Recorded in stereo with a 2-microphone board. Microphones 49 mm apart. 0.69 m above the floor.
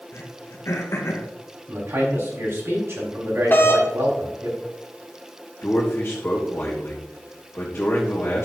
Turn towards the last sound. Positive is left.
turn(degrees=50)  # may be behind; listen again after turning